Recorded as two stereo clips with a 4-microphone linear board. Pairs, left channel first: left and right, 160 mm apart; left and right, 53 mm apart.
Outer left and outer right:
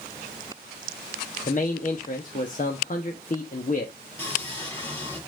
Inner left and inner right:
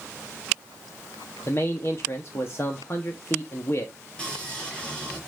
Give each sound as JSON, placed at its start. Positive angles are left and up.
{"t": 1.5, "sound": "a man speaking", "side_deg": 50, "distance_m": 1.0}
{"t": 4.2, "sound": "sawing", "side_deg": 15, "distance_m": 5.5}